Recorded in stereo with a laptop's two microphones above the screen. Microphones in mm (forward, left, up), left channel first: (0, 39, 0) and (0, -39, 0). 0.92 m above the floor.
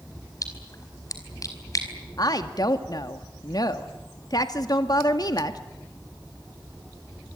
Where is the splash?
45° left (ahead or behind), 4.5 m.